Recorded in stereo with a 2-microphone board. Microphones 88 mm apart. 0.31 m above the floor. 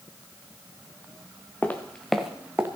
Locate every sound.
1.6 s footsteps: 20° left (ahead or behind), 1.9 m; by 2.7 s 20° right (ahead or behind), 1.6 m